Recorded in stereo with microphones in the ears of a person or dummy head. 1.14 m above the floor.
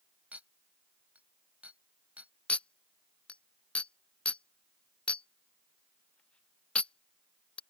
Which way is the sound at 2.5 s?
10° left (ahead or behind).